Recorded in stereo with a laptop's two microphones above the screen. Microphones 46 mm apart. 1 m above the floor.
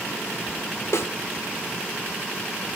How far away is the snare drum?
About 1.2 m.